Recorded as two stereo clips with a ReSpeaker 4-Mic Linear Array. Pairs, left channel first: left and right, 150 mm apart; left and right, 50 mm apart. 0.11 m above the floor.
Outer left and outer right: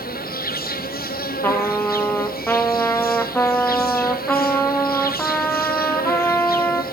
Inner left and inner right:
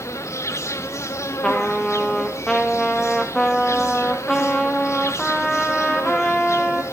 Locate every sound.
0.0 s an insect: 85° left, 1.2 m
1.4 s a trumpet: 15° left (ahead or behind), 1.4 m